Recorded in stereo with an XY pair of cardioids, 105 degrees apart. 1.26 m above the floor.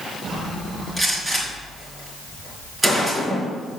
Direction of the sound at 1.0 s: 15° right.